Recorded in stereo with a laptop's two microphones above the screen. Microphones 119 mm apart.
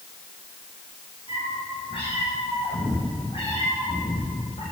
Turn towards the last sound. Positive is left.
turn(degrees=55)  # may be behind; listen again after turning